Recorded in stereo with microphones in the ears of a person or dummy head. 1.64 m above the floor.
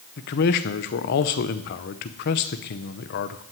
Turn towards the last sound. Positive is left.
turn(degrees=50)  # may be behind; listen again after turning